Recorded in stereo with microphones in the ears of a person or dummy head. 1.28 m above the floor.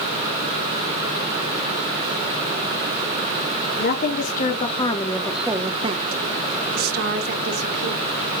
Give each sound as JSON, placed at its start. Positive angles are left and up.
{"t": 3.8, "sound": "a woman speaking", "side_deg": 65, "distance_m": 2.0}